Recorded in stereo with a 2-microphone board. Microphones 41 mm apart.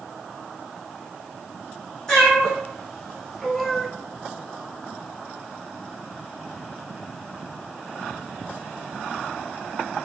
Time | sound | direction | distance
2.1 | a cat meowing | 15° left (ahead or behind) | 2 m